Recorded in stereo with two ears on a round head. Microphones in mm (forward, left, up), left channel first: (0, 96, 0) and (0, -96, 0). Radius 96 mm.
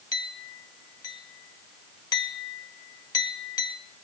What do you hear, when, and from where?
0.1 s a clink: 20° left (ahead or behind), 1.2 m